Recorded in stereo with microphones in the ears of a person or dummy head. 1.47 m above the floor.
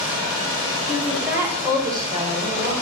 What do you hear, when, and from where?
0.9 s a woman speaking: 5° right (ahead or behind), 4.5 m; by 2.7 s 30° right (ahead or behind), 6.5 m